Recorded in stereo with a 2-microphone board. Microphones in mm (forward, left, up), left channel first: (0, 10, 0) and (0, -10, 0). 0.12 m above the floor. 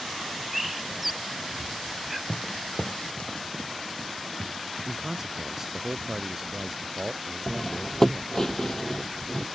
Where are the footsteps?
40° left (ahead or behind); by 5.8 s 80° left.